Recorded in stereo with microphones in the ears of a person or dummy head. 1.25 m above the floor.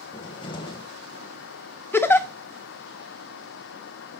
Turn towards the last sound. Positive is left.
turn(degrees=10)  # may be behind; listen again after turning